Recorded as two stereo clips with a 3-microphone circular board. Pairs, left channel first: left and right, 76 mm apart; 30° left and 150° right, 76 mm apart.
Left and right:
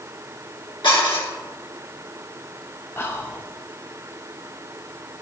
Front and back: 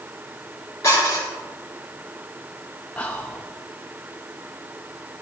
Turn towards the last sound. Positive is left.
turn(degrees=85)